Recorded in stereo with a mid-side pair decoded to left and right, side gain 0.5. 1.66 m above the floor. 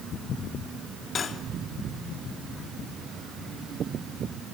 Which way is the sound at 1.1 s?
45° left.